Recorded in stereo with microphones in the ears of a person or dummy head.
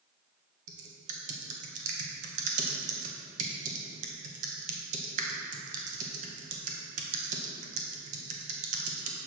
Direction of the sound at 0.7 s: 40° right (ahead or behind).